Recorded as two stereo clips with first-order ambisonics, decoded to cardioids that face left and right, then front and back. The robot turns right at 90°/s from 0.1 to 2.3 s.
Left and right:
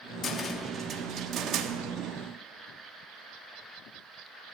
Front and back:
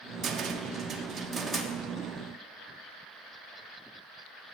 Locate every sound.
0.2 s a cupboard door: 130° left, 1.0 m; by 1.7 s 95° right, 1.0 m